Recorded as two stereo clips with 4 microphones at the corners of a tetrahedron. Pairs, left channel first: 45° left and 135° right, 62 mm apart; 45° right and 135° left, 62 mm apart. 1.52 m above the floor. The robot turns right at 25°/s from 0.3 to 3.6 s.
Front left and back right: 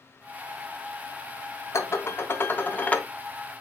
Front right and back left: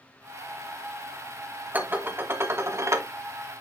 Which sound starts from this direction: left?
Dishes clattering, at 1.7 s.